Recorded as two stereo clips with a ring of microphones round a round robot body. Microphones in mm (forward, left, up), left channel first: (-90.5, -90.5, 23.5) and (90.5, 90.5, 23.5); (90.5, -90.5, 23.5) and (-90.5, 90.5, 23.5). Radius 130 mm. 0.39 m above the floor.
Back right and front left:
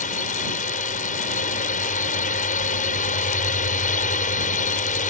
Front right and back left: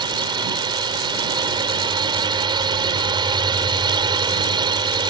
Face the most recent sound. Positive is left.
turn(degrees=-165)